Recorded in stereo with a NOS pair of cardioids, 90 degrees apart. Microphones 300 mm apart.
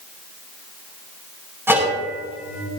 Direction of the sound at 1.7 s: 10° right.